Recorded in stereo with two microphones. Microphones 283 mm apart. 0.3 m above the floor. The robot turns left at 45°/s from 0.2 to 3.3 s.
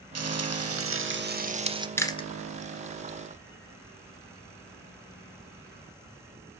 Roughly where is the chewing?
Centre.